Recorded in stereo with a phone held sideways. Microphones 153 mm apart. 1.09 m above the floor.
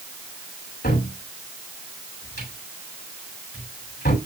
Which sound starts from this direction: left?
A cupboard door, at 0.8 s.